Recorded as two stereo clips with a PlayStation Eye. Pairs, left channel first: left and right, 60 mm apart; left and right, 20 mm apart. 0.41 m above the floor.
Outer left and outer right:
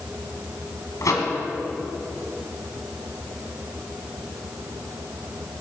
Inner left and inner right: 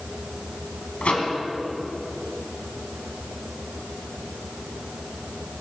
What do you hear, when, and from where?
1.0 s a microwave: 75° left (ahead or behind), 2 m